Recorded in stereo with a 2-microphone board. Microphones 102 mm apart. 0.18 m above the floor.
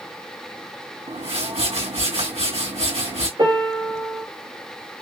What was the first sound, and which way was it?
A whoosh, 70° right (ahead or behind).